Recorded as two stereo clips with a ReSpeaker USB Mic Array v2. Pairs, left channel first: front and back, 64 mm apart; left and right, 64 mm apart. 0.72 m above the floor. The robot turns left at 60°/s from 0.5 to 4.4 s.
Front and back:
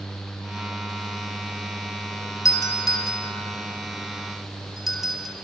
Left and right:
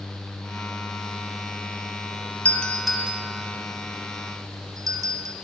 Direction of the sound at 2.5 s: 25° left.